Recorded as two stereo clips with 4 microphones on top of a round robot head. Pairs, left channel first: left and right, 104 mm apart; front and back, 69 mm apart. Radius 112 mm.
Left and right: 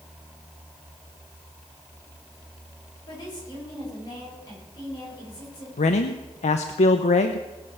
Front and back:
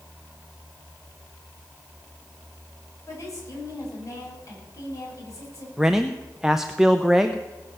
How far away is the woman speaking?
About 6 m.